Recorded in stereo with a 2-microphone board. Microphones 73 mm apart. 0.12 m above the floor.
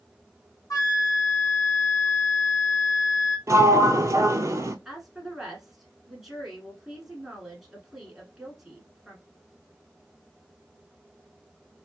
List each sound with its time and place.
0.7 s a flute: 60° left (ahead or behind), 0.9 m
3.5 s a sliding door: 45° right (ahead or behind), 0.6 m
4.8 s a woman speaking: 5° right (ahead or behind), 1.2 m